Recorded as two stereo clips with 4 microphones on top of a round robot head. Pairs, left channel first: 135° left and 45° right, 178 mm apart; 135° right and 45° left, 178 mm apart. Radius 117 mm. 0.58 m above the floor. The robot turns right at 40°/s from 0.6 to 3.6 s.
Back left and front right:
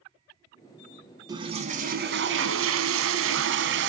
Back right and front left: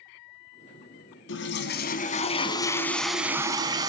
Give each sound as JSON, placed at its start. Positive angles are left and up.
{"t": 1.3, "sound": "a toilet flushing", "azimuth_deg": -115, "distance_m": 1.0}